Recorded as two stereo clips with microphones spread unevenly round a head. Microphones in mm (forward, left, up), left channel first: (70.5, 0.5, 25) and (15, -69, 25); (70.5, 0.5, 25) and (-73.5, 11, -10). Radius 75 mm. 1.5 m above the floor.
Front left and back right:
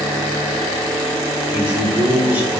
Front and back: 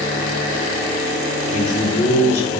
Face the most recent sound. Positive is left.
turn(degrees=-55)